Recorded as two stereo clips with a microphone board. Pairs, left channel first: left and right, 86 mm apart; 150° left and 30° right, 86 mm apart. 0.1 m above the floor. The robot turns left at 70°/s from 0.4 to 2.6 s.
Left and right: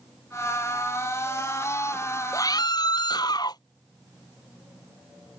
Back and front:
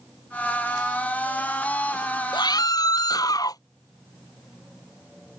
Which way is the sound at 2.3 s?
135° left.